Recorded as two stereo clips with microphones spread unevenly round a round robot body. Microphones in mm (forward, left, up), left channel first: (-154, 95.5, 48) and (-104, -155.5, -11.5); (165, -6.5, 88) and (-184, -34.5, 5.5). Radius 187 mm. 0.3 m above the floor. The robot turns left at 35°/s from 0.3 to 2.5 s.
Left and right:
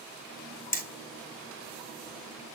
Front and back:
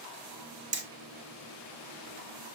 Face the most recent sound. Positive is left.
turn(degrees=105)